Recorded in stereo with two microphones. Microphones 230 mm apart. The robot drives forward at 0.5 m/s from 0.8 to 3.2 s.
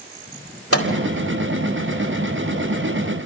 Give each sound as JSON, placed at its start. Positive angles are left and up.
{"t": 0.7, "sound": "a microwave", "side_deg": 80, "distance_m": 4.0}